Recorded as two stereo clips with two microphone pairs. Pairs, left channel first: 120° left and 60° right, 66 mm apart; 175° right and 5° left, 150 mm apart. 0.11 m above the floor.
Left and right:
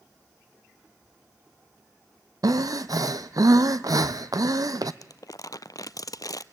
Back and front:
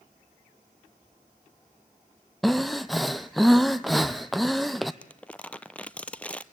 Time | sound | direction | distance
2.4 | breathing | 85° right | 0.8 m
5.0 | crumpling | 105° left | 0.6 m